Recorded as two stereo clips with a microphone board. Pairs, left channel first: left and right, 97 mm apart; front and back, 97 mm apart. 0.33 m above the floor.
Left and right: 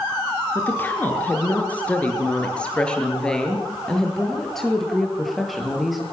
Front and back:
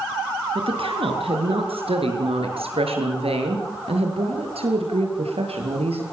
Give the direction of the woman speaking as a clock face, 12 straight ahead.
7 o'clock.